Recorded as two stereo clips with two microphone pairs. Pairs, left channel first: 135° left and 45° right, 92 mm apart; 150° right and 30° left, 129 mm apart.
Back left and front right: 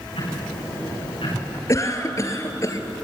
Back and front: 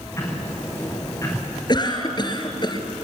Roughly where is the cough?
Behind.